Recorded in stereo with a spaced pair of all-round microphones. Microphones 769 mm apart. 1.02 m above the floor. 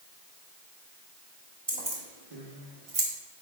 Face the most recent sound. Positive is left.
turn(degrees=-70)  # may be behind; listen again after turning